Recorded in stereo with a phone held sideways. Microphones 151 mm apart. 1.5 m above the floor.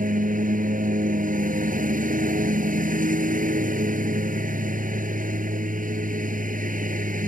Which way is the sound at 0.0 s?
60° right (ahead or behind).